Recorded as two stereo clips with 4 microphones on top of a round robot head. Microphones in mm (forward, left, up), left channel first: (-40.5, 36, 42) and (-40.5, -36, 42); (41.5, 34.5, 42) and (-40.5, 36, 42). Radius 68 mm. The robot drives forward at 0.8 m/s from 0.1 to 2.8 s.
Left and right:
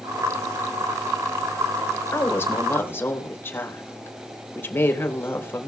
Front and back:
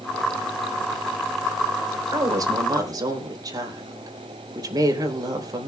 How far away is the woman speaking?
About 3 m.